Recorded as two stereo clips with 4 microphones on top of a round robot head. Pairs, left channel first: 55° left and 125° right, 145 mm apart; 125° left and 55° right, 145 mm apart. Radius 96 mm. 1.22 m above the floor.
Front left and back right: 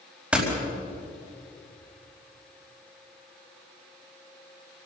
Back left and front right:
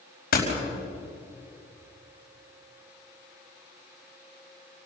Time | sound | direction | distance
0.3 | a door slam | 150° left | 5 m